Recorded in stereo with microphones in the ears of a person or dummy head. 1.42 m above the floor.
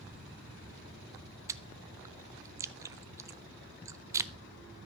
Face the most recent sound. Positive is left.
turn(degrees=-15)  # may be behind; listen again after turning